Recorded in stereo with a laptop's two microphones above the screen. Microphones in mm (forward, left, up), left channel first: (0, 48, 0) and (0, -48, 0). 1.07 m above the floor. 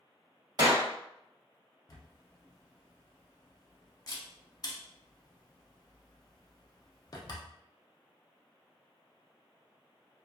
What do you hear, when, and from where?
0.6 s a clap: 45° right (ahead or behind), 1.5 m
1.9 s a camera shutter: 40° left (ahead or behind), 0.5 m